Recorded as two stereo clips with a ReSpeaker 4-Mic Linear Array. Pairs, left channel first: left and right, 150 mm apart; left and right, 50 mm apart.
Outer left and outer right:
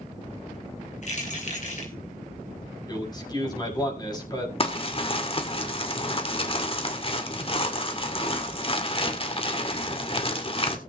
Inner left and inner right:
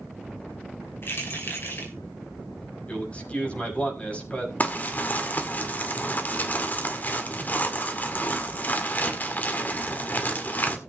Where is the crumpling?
40° left (ahead or behind), 2 m.